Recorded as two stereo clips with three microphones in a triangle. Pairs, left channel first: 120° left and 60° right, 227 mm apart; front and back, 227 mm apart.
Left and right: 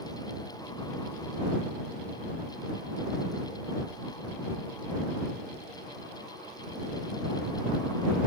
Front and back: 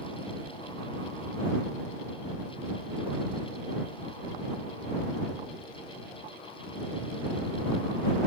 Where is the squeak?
No squeak in this recording.